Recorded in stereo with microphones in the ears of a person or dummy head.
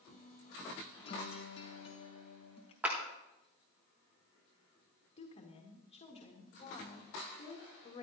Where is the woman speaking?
35° left (ahead or behind), 1.9 m.